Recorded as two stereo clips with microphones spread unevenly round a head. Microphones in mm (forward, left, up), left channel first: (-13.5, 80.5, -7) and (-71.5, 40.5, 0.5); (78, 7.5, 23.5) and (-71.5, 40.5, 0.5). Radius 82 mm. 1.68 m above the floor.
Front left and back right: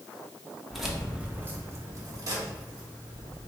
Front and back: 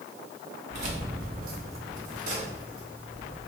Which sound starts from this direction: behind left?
Keys jangling, at 0.7 s.